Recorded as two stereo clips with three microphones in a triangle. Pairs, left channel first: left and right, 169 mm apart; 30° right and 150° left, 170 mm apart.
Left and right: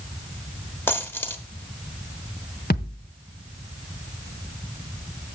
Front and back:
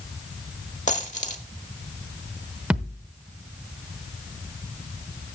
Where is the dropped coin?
10° left, 1.2 m.